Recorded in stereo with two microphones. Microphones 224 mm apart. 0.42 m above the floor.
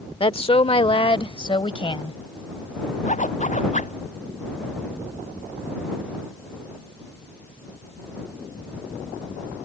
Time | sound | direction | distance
0.2 | a woman speaking | 25° left (ahead or behind) | ?
3.0 | a zipper | 35° left (ahead or behind) | ?